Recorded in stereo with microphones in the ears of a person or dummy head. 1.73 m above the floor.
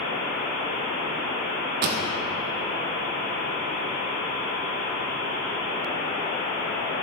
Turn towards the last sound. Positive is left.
turn(degrees=-60)  # may be behind; listen again after turning